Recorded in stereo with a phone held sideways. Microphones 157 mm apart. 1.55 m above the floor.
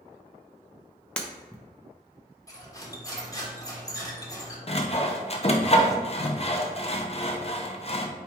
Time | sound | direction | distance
1.2 | breaking glass | 10° left (ahead or behind) | 0.6 m
2.5 | cutlery clinking | 20° left (ahead or behind) | 1.0 m
4.7 | sawing | 40° left (ahead or behind) | 0.6 m